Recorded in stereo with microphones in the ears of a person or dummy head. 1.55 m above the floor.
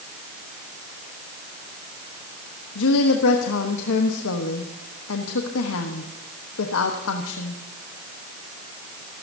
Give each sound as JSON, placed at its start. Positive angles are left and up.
{"t": 2.8, "sound": "a woman speaking", "side_deg": 75, "distance_m": 1.2}